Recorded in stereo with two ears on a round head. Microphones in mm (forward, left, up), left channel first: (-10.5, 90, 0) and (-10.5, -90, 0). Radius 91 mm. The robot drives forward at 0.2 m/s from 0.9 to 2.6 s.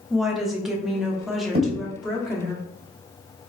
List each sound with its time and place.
0.1 s a woman speaking: centre (ahead or behind), 0.8 m
1.5 s a thud: 30° right (ahead or behind), 1.4 m